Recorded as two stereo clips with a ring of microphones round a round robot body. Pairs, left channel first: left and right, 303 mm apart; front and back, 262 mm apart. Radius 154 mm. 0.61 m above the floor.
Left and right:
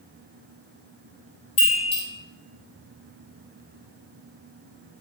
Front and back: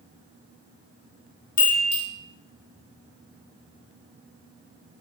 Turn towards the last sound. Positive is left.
turn(degrees=15)